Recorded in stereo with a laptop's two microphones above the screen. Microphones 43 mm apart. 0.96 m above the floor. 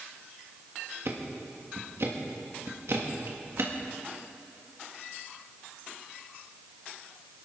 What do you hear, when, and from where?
1.1 s ticking: 65° right (ahead or behind), 1.6 m